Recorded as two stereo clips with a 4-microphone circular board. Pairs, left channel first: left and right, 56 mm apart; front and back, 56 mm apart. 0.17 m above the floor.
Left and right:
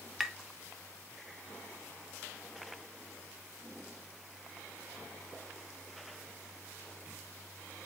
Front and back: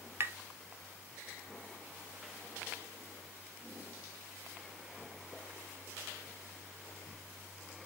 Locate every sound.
0.2 s tapping: straight behind, 0.5 m